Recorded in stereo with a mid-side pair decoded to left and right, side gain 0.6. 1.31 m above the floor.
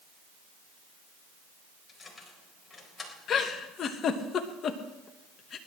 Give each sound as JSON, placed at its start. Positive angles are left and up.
{"t": 1.9, "sound": "keys jangling", "azimuth_deg": 20, "distance_m": 4.5}
{"t": 3.3, "sound": "a giggle", "azimuth_deg": 45, "distance_m": 1.6}